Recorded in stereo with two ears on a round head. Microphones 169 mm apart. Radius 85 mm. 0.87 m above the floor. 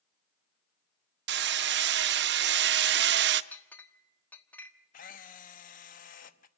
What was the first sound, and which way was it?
Hammering, 60° right (ahead or behind).